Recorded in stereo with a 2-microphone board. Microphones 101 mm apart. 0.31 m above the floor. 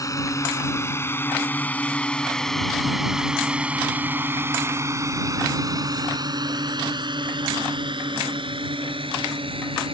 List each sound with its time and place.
0.0 s a drone: 35° left (ahead or behind); by 9.9 s 65° right (ahead or behind)